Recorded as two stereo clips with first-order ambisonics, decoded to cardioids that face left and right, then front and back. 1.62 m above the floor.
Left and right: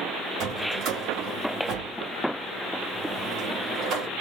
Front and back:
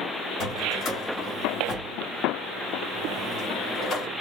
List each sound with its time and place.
0.4 s a drawer: 55° right, 1.9 m